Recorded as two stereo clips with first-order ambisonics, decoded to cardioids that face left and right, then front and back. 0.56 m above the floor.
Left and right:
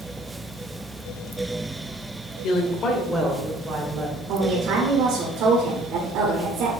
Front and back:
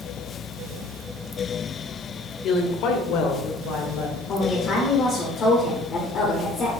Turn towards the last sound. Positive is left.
turn(degrees=-50)